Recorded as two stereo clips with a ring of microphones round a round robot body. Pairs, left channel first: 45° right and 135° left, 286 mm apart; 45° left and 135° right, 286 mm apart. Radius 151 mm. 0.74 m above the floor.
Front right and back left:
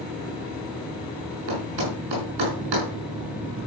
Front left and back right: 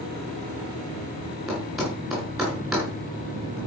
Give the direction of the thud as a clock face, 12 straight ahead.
7 o'clock.